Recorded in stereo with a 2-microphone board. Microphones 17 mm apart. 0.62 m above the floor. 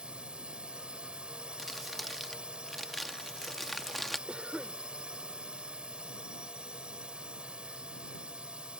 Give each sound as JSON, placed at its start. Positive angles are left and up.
{"t": 0.0, "sound": "a drone", "side_deg": -60}
{"t": 1.6, "sound": "crumpling", "side_deg": 5}
{"t": 4.3, "sound": "a cough", "side_deg": -60}